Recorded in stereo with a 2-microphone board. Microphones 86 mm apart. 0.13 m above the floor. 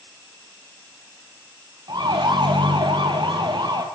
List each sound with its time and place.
1.9 s a siren: 55° right (ahead or behind), 3.5 m